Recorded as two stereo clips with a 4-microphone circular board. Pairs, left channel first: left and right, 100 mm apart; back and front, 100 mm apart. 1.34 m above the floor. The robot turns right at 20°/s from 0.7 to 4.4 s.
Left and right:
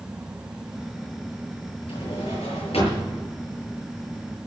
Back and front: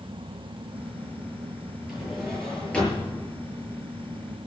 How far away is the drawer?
About 7.5 m.